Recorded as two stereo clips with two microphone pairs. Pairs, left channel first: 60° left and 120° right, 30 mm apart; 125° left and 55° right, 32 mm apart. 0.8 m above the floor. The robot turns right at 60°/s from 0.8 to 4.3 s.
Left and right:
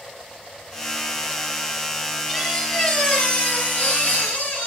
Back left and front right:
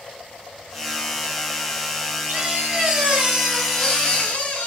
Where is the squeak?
40° right, 0.9 m; by 4.7 s 80° left, 0.9 m.